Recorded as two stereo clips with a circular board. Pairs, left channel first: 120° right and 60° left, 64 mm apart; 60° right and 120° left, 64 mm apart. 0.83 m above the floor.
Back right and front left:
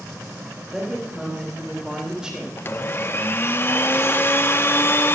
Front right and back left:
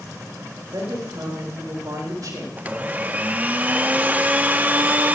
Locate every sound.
0.7 s a woman speaking: 140° left, 3.5 m
2.6 s a blender: 175° right, 0.5 m